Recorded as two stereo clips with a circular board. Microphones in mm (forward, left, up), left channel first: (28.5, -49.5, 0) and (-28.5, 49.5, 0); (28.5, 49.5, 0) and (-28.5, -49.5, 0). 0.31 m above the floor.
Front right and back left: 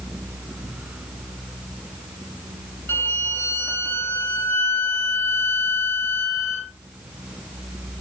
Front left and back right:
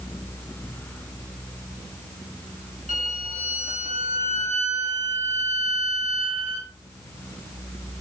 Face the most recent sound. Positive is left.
turn(degrees=-130)